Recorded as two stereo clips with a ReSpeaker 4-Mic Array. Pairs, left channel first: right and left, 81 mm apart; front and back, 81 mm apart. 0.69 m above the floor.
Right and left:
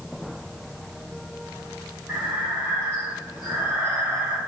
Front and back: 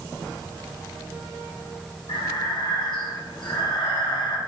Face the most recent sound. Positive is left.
turn(degrees=15)